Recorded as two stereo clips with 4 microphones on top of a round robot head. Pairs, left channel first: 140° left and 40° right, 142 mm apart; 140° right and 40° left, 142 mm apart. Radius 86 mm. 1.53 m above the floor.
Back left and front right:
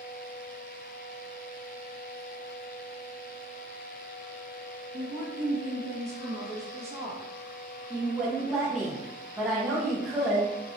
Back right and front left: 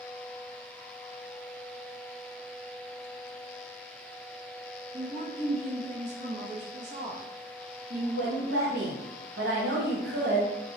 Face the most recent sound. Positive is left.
turn(degrees=40)